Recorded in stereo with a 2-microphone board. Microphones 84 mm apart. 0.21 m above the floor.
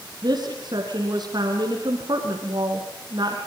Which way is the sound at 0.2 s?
60° right (ahead or behind).